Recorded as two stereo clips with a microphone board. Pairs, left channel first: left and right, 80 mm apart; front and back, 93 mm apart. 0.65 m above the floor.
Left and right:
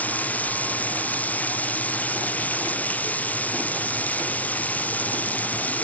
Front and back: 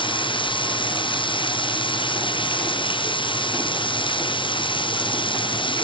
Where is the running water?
20° left.